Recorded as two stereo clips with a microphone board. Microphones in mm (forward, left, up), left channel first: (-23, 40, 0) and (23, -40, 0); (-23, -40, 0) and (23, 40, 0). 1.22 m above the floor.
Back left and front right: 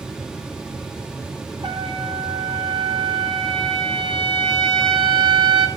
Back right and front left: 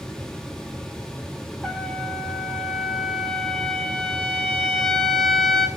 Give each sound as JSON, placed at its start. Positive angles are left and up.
{"t": 1.6, "sound": "a trumpet", "azimuth_deg": -35, "distance_m": 1.8}